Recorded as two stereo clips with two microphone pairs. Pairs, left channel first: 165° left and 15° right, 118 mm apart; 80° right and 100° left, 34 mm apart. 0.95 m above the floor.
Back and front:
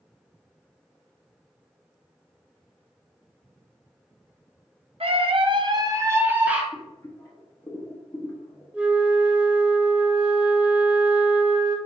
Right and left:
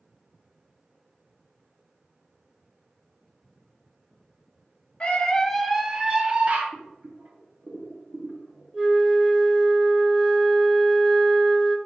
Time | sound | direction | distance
5.0 | a scream | 25° right | 0.7 m
6.7 | boiling | 105° left | 1.3 m
8.7 | a flute | 60° left | 0.7 m